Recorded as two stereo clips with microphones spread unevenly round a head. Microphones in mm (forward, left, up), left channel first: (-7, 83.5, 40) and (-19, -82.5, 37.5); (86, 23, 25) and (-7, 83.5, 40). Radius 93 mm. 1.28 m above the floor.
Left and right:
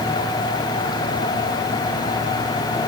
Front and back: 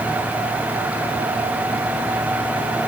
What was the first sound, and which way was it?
Only background noise.